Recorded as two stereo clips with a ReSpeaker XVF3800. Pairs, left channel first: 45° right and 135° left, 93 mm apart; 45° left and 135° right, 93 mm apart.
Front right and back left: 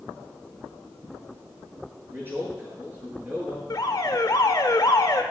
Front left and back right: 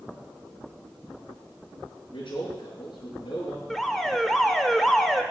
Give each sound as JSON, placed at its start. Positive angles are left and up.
{"t": 2.1, "sound": "a man speaking", "azimuth_deg": 70, "distance_m": 7.0}
{"t": 3.7, "sound": "an alarm", "azimuth_deg": -40, "distance_m": 1.2}